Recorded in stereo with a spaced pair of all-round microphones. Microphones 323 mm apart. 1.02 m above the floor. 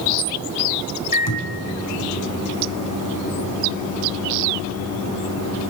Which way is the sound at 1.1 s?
85° left.